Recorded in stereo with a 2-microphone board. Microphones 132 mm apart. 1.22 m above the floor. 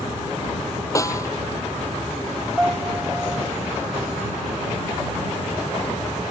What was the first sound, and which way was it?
A snare drum, 25° left (ahead or behind).